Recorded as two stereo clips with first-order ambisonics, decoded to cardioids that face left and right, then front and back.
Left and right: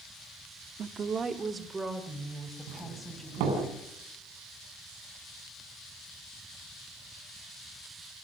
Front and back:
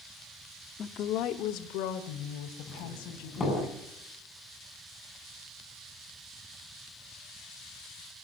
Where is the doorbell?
75° right, 6 m.